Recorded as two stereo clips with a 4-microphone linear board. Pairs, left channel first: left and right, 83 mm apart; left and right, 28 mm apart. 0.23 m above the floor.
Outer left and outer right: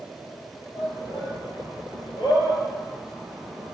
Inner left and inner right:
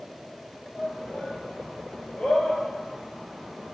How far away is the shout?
About 5 m.